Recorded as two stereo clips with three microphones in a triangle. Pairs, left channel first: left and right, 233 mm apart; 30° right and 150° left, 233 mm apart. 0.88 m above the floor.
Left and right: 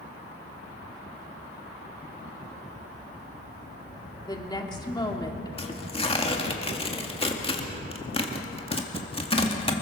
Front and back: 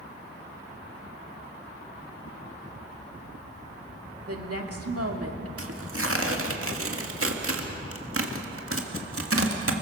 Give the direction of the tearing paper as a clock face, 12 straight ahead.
7 o'clock.